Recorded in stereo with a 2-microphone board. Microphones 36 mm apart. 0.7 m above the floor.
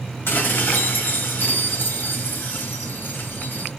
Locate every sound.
0.3 s dishes clattering: 75° left (ahead or behind), 0.6 m